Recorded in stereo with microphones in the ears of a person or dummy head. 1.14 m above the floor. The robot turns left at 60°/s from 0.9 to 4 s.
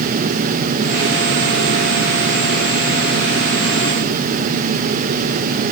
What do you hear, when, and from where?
Only background noise.